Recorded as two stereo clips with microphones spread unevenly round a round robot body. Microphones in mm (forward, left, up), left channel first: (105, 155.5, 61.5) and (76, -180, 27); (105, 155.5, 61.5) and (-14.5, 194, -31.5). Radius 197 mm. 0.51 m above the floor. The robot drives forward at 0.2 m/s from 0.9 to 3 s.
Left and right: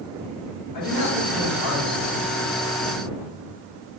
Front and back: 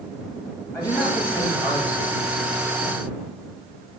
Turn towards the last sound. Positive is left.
turn(degrees=65)